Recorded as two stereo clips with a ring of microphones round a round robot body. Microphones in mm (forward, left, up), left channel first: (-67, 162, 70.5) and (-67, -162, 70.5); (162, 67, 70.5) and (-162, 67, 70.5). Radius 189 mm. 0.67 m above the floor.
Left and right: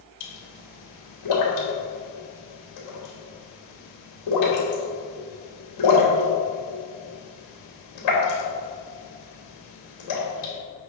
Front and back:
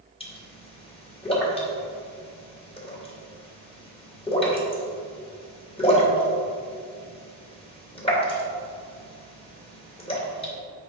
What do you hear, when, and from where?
0.2 s a pop: 70° left, 2.5 m